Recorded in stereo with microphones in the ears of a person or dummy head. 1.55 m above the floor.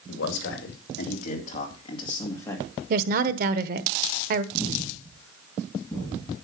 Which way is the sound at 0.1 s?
70° left (ahead or behind).